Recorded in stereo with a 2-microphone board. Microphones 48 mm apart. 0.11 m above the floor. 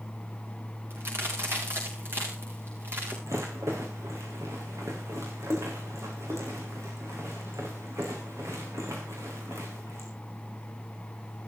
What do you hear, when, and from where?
0.9 s a crack: 55° right (ahead or behind), 5.5 m
3.3 s a rattle: 80° right, 5.5 m